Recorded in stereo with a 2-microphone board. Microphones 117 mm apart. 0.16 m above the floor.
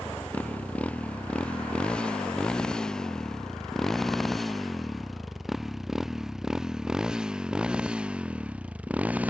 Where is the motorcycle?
15° left (ahead or behind); by 9.3 s 10° right (ahead or behind).